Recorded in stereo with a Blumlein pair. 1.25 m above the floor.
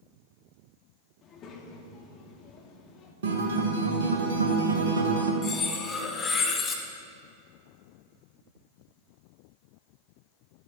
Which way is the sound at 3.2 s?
60° right.